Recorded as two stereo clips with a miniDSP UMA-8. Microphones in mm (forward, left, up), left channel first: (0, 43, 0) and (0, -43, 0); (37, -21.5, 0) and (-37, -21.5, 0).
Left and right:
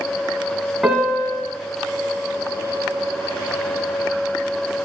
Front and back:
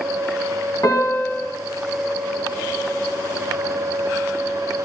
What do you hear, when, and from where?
0.8 s a piano: 5° right, 1.8 m